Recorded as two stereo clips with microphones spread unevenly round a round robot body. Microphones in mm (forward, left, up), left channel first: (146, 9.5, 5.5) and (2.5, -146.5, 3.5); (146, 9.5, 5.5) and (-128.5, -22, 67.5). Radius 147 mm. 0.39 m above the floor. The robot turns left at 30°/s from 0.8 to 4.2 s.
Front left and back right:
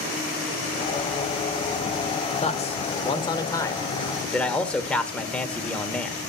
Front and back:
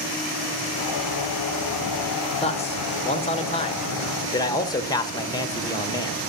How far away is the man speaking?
About 1.1 m.